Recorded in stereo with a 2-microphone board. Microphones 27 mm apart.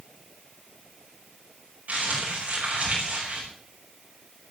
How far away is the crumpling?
About 9.5 m.